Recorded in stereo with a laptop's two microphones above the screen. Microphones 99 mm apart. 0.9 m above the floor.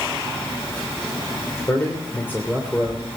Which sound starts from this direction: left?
A man speaking, at 1.7 s.